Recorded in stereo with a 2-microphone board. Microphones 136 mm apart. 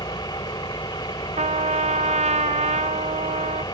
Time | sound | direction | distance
0.0 | an engine running | 30° left (ahead or behind) | ?
1.4 | a trumpet | 55° right (ahead or behind) | ?